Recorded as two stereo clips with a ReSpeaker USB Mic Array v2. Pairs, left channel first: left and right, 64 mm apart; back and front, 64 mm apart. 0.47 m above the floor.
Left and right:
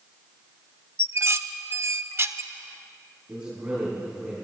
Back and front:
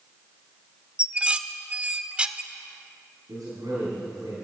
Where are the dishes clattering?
65° right, 0.6 m.